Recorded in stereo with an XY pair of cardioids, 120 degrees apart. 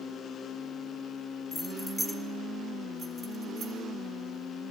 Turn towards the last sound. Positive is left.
turn(degrees=-40)